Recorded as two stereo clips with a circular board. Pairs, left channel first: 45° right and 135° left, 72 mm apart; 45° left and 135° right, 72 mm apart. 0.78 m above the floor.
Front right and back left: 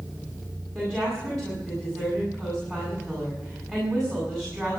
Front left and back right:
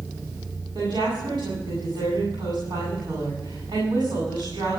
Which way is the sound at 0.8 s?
120° right.